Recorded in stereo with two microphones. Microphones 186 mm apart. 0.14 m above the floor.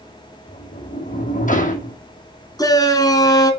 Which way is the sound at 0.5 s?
45° left (ahead or behind).